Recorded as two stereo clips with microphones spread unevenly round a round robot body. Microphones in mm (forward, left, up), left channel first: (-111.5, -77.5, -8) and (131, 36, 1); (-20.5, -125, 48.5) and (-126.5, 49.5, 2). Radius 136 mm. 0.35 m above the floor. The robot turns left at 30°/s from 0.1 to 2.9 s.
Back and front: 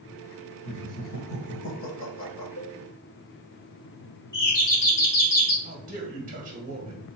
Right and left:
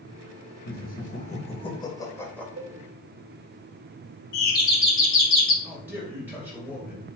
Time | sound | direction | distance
0.7 | laughter | 100° right | 1.2 m
2.6 | a cowbell | 165° left | 1.4 m
4.3 | a doorbell | 105° right | 3 m
5.6 | a man speaking | 65° left | 1.6 m